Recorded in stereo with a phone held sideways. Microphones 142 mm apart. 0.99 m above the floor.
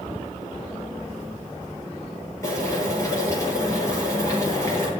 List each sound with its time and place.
2.4 s boiling: 20° left (ahead or behind), 9.5 m